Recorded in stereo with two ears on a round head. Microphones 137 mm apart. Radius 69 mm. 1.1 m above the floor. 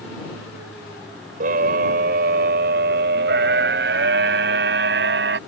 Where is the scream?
65° right (ahead or behind); by 5.4 s 85° right.